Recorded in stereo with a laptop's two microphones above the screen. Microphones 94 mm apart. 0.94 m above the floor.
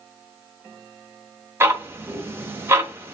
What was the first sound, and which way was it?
Ticking, 25° right (ahead or behind).